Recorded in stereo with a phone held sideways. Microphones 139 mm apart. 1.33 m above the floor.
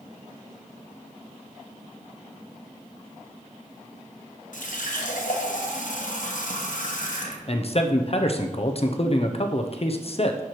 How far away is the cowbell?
I don't hear a cowbell.